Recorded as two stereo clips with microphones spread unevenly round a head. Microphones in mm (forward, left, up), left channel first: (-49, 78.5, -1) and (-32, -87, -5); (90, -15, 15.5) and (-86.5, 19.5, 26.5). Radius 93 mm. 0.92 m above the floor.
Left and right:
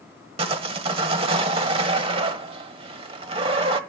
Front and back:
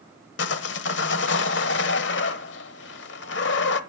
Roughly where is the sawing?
Ahead right.